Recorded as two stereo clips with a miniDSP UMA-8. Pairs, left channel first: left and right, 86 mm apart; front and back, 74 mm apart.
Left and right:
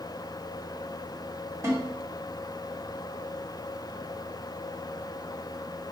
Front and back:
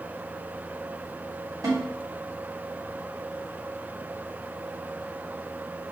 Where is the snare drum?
145° right, 3 m.